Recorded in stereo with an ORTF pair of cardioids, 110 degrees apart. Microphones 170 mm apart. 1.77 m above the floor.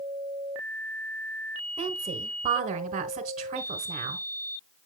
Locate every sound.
1.8 s a woman speaking: 40° right, 1.5 m